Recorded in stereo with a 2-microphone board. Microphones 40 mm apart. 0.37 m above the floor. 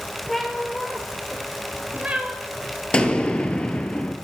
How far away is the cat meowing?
About 2 m.